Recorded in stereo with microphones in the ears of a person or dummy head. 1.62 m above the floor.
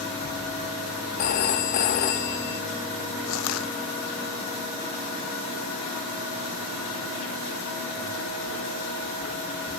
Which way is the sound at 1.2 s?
50° left (ahead or behind).